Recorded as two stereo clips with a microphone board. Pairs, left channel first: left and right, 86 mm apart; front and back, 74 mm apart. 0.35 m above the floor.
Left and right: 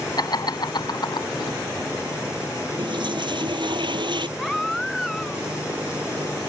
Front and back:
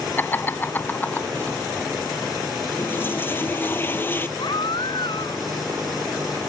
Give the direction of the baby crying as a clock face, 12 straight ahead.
12 o'clock.